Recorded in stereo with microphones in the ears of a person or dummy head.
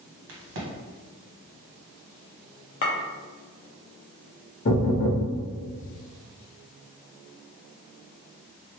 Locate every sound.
0.3 s a crack: 70° right (ahead or behind), 1.2 m
2.8 s a clink: 35° left (ahead or behind), 0.7 m
4.7 s knocking: 45° left (ahead or behind), 1.0 m